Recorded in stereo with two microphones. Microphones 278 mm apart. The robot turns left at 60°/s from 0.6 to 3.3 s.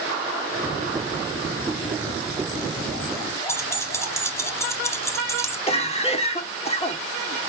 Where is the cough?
20° left (ahead or behind), 0.7 m.